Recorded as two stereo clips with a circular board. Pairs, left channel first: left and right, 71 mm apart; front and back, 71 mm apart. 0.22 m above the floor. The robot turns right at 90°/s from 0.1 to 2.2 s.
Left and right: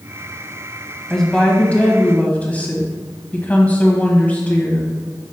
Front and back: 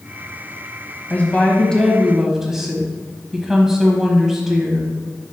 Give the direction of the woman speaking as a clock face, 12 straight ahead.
12 o'clock.